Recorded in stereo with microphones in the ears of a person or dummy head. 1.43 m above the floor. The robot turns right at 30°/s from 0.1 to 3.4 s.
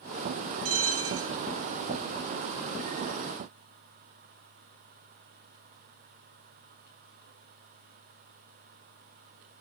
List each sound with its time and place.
0.7 s a bell: 70° right (ahead or behind), 0.6 m; by 1.4 s 65° right (ahead or behind), 0.6 m